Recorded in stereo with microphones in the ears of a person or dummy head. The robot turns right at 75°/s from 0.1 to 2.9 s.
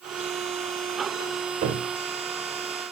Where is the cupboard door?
30° right (ahead or behind), 1.5 m; by 1.9 s 40° right (ahead or behind), 1.5 m.